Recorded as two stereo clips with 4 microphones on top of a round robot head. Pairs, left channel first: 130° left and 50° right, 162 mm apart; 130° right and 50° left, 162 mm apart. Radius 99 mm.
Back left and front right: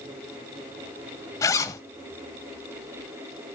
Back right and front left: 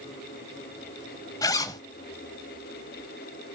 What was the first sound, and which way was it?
A zipper, straight behind.